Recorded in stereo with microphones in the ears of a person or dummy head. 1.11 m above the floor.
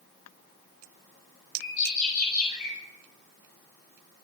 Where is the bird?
50° left (ahead or behind), 9 m.